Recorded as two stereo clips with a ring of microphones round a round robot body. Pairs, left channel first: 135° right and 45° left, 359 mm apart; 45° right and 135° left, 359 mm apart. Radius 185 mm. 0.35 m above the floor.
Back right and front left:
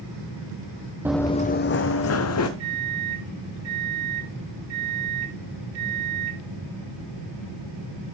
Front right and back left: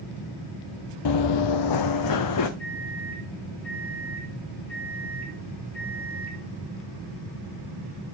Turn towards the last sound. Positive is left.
turn(degrees=40)